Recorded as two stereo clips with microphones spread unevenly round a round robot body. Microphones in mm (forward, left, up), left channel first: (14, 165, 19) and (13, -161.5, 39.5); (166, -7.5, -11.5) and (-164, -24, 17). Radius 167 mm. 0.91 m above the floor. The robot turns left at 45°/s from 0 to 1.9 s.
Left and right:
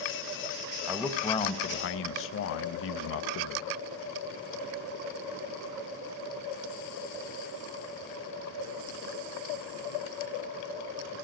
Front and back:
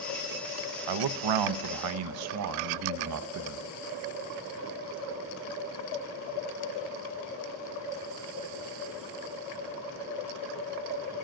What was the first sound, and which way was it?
A man speaking, 175° right.